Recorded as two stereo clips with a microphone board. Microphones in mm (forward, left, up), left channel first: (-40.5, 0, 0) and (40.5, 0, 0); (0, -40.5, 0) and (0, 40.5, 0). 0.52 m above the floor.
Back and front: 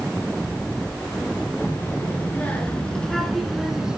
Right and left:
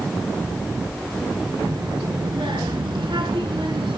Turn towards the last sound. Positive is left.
turn(degrees=80)